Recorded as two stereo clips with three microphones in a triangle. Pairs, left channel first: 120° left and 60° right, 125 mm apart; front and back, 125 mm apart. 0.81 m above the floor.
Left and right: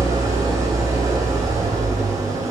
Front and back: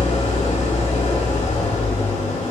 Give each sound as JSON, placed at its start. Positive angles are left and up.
{"t": 0.0, "sound": "an engine running", "azimuth_deg": 5, "distance_m": 4.0}